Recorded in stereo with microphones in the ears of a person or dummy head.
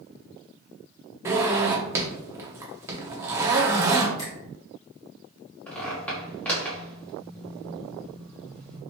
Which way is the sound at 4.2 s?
25° left (ahead or behind).